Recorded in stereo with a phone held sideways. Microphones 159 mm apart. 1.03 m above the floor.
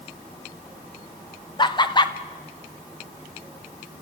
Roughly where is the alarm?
No alarm in this recording.